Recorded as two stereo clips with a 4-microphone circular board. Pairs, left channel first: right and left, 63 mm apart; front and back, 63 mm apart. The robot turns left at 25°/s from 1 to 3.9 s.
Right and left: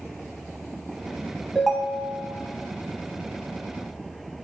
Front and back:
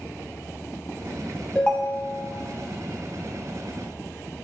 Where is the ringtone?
Straight ahead, 0.6 m; by 2.3 s 20° right, 0.6 m.